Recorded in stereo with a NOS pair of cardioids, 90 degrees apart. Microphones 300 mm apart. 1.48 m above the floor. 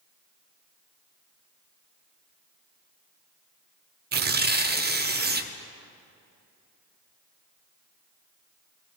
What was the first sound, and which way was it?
Tearing paper, 35° right.